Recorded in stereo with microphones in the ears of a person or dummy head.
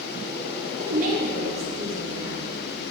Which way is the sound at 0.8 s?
50° right (ahead or behind).